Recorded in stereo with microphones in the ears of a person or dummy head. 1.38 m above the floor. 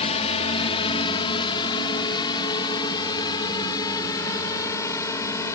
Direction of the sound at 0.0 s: 35° left (ahead or behind).